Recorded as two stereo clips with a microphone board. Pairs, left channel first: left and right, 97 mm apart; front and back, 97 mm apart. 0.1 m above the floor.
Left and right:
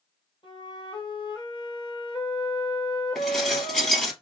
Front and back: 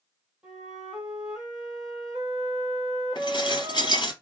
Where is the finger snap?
No finger snap in this recording.